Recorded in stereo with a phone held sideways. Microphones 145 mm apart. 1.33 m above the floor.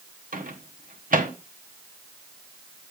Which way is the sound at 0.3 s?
70° right (ahead or behind).